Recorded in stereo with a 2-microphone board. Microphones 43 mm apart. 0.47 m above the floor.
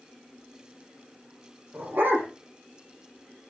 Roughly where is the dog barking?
Right.